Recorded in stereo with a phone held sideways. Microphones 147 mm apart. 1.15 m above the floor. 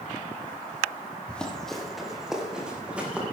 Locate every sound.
1.3 s running footsteps: 5° left (ahead or behind), 2.5 m; by 3.2 s 10° right (ahead or behind), 4 m